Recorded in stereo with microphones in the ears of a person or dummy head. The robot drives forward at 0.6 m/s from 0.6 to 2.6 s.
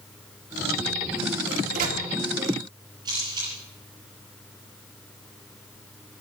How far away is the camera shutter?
About 7 m.